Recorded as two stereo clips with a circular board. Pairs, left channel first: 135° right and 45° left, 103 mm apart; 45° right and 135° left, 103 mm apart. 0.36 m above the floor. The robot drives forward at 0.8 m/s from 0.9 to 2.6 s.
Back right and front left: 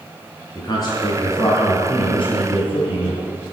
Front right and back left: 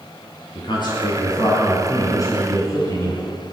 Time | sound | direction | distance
0.6 | a man speaking | 80° right | 3.5 m